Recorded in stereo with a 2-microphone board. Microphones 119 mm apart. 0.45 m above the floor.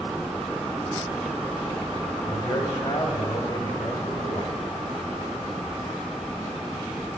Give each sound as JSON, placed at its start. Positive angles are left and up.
{"t": 2.3, "sound": "a man speaking", "side_deg": 40, "distance_m": 1.9}